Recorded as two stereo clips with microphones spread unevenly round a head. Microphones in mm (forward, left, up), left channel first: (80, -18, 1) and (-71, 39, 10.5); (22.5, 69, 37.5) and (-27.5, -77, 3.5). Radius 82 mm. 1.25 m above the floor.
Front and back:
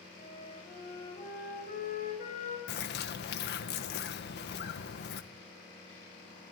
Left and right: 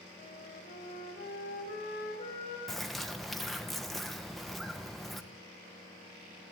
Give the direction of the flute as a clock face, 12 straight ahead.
11 o'clock.